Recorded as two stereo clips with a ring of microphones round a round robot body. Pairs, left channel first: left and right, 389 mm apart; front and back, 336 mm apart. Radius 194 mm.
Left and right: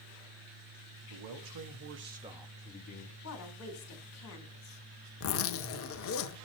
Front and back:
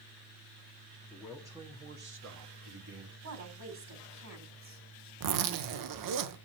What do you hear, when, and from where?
1.1 s a man speaking: 90° right, 1.8 m; by 3.1 s 150° left, 1.7 m
3.2 s a woman speaking: 145° left, 2.5 m
5.2 s a zipper: 145° left, 0.7 m